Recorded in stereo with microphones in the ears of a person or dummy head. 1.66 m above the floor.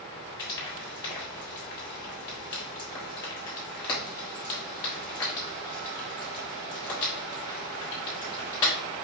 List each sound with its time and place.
0.4 s frying: 25° left (ahead or behind), 1.4 m